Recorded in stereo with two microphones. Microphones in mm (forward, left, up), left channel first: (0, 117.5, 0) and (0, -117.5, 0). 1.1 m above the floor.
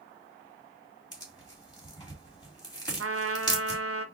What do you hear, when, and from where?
1.1 s tearing paper: 15° left (ahead or behind), 2.5 m
3.0 s a trumpet: 70° right (ahead or behind), 0.6 m